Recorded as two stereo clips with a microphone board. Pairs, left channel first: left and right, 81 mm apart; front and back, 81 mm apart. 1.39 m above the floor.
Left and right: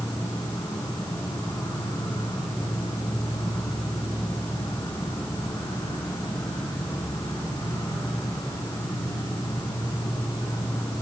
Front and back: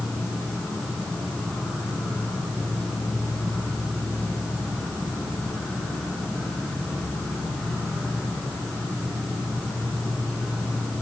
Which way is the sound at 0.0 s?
75° left.